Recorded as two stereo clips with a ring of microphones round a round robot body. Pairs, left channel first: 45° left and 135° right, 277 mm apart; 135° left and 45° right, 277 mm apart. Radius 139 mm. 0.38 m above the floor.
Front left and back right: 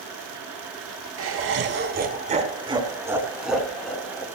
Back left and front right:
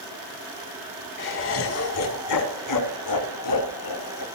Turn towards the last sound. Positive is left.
turn(degrees=125)